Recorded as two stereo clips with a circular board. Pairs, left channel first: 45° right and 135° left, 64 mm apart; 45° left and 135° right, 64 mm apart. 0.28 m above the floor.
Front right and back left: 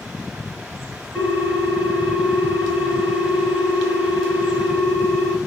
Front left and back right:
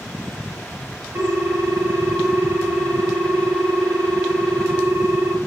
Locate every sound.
1.1 s a ringtone: 115° right, 0.8 m